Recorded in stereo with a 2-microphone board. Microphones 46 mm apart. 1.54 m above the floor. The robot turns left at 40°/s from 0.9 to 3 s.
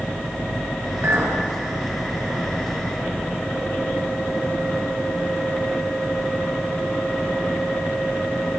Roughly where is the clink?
Right.